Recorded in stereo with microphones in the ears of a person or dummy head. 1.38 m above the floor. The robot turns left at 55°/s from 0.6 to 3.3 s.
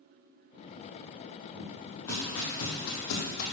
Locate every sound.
1.5 s footsteps: 20° right (ahead or behind), 1.9 m; by 3.4 s 55° left (ahead or behind), 3 m